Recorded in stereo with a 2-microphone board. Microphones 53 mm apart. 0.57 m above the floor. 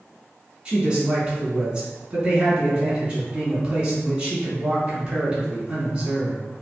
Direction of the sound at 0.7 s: 25° right (ahead or behind).